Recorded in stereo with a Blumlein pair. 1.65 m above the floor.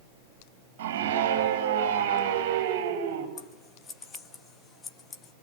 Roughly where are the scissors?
Ahead.